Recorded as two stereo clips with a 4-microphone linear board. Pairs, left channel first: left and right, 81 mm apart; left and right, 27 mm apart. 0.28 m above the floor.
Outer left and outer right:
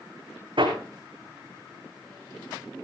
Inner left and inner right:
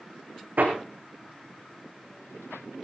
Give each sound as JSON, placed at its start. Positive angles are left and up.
{"t": 0.6, "sound": "hammering", "side_deg": -80, "distance_m": 4.5}